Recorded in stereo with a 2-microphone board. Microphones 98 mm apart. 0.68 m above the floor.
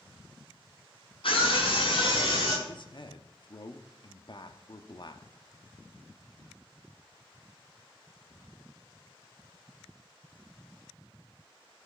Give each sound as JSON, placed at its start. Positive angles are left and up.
{"t": 1.2, "sound": "a scream", "side_deg": 60, "distance_m": 5.0}
{"t": 2.7, "sound": "a man speaking", "side_deg": 55, "distance_m": 1.0}